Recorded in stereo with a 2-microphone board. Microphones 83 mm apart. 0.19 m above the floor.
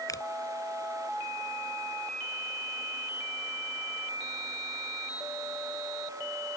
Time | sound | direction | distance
0.1 | a finger snap | 45° left (ahead or behind) | ?